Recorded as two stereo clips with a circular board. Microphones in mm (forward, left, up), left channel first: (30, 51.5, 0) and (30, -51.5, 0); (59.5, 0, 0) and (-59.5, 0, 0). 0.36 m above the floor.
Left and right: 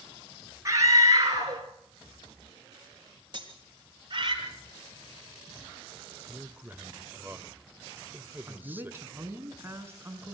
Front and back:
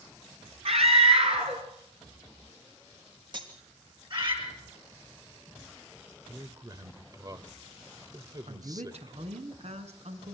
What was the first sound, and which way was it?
A scream, 150° right.